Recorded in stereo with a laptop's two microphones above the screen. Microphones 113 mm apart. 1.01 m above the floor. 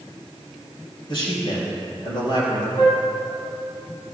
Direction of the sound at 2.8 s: 60° left (ahead or behind).